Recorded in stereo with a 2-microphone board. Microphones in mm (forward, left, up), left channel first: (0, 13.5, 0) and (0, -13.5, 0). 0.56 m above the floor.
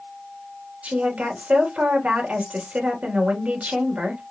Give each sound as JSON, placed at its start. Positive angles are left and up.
{"t": 0.8, "sound": "a woman speaking", "side_deg": -60, "distance_m": 2.5}